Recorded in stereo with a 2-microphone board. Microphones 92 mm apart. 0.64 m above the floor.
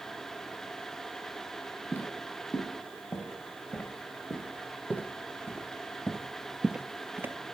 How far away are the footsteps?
About 3.5 m.